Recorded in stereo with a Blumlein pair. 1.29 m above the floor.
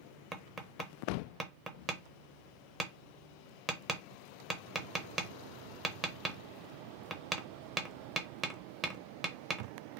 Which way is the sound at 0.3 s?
15° right.